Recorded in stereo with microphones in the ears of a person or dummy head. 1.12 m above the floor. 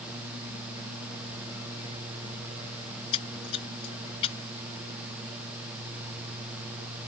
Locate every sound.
2.9 s a splash: 35° left (ahead or behind)